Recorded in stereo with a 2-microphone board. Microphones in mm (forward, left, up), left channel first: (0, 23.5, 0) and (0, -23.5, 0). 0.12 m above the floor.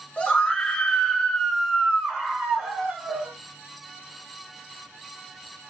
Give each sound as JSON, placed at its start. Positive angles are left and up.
{"t": 0.2, "sound": "a scream", "side_deg": 20, "distance_m": 1.6}